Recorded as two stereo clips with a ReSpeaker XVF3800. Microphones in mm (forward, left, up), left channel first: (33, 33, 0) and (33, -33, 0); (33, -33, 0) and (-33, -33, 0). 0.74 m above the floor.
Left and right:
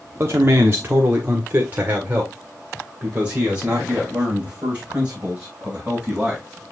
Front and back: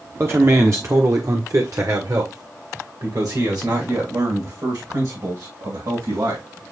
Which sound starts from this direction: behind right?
A man speaking, at 0.2 s.